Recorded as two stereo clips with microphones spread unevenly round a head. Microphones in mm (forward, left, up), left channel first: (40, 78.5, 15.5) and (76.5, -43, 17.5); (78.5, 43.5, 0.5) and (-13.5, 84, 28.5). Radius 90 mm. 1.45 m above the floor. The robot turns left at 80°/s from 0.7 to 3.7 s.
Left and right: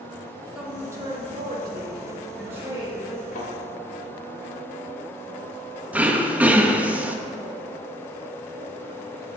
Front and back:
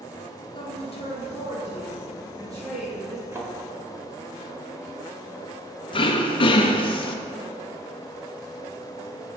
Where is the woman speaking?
10° left, 2.5 m; by 3.2 s 170° left, 2.5 m.